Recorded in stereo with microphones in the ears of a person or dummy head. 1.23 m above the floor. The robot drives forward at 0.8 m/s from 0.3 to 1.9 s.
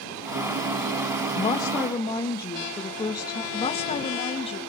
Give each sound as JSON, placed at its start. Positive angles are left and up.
{"t": 1.4, "sound": "a woman speaking", "side_deg": 20, "distance_m": 1.0}
{"t": 3.5, "sound": "a woman speaking", "side_deg": 30, "distance_m": 1.8}